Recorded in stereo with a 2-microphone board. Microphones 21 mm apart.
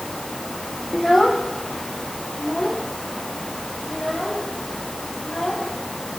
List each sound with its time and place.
0.9 s a child speaking: 10° left (ahead or behind), 1.1 m; by 5.7 s 25° left (ahead or behind), 4.5 m